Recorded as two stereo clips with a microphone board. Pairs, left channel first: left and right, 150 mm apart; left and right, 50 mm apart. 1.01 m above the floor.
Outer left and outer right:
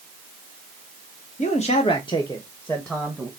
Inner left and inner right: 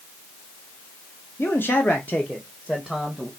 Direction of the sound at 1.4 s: 50° left (ahead or behind).